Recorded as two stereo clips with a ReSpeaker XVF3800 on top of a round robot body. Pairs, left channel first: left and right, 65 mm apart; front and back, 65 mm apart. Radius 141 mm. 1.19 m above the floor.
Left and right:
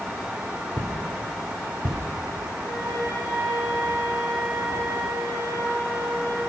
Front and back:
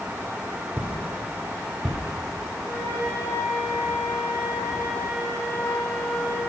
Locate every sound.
0.8 s footsteps: 115° right, 1.5 m; by 2.0 s 90° right, 2.5 m
2.6 s a flute: 55° right, 2.0 m